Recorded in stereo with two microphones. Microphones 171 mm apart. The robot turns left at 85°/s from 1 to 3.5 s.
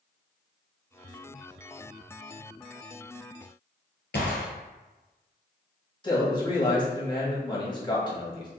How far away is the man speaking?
About 1.6 m.